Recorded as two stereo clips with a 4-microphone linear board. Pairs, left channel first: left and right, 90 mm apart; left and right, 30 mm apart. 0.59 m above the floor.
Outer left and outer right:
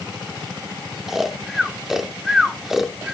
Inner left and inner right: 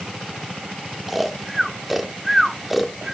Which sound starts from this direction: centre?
Snoring, at 1.1 s.